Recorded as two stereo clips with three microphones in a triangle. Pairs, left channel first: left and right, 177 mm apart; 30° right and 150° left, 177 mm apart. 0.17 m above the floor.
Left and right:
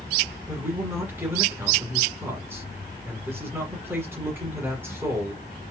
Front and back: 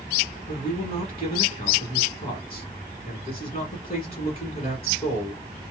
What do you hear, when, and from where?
0.5 s a man speaking: 25° right, 1.3 m